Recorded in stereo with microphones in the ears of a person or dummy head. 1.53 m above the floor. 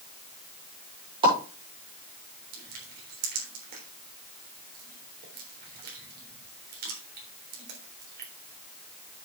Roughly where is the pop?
Right.